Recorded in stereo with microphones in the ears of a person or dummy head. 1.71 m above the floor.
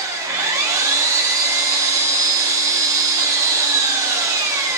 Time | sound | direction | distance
0.0 | an engine running | 15° right (ahead or behind) | 0.8 m